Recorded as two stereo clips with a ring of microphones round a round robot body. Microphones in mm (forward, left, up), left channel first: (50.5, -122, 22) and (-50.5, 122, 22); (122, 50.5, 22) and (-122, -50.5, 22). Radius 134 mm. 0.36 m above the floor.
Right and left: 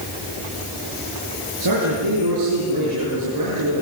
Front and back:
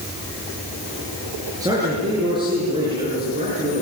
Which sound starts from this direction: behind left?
A man speaking, at 1.6 s.